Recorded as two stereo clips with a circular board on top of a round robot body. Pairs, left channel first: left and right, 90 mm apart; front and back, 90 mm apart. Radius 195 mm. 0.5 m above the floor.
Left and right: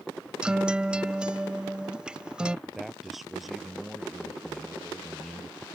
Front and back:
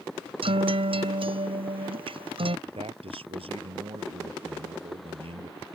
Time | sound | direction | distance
0.4 | a guitar | 170° right | ?
2.7 | a man speaking | straight behind | ?